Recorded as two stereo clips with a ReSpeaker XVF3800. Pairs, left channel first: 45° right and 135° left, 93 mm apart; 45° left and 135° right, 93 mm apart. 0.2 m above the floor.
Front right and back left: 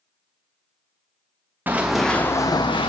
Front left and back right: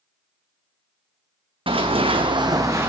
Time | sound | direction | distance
1.7 | running footsteps | 155° right | 0.7 m